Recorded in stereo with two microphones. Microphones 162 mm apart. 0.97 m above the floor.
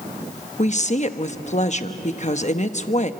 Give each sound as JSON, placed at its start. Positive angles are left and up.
{"t": 0.6, "sound": "a woman speaking", "side_deg": 45, "distance_m": 1.0}